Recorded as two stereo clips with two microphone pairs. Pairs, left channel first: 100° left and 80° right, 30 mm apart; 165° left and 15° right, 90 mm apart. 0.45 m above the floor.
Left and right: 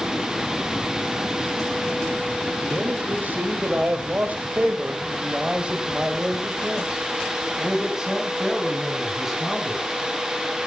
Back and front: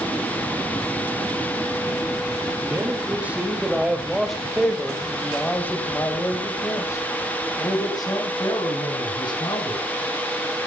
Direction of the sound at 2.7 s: 80° right.